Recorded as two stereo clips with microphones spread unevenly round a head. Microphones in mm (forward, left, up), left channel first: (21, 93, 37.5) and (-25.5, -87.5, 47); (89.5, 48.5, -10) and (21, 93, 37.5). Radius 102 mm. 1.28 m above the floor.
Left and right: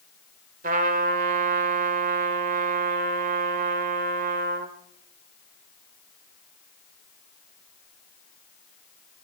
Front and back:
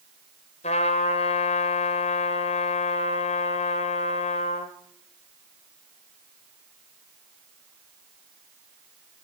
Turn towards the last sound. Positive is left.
turn(degrees=-65)